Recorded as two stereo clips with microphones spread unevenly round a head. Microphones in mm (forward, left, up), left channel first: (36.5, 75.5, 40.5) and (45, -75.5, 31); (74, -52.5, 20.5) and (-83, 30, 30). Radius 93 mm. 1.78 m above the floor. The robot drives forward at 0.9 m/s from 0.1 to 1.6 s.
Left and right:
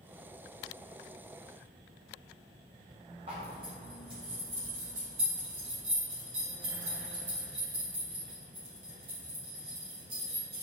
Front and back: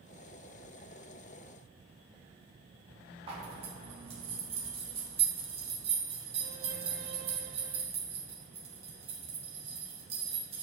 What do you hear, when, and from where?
3.3 s a zipper: 150° right, 1.5 m